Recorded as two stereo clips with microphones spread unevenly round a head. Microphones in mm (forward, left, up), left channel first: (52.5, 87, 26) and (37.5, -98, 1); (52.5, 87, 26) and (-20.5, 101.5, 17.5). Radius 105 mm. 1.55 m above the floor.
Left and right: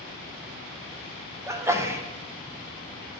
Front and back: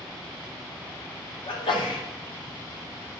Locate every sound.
1.5 s a sneeze: 20° right, 1.1 m